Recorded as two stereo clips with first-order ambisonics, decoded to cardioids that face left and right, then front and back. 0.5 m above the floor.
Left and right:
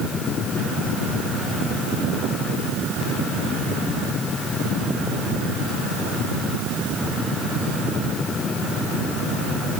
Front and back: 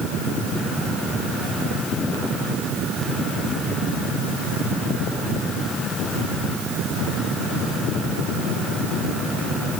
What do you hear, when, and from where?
Only background noise.